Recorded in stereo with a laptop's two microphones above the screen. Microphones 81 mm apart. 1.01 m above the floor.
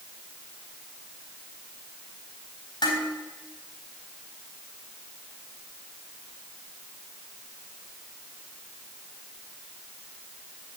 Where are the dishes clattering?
65° left (ahead or behind), 3.5 m.